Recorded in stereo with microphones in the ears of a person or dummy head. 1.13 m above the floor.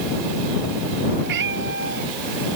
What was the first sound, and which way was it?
A cat meowing, 65° right (ahead or behind).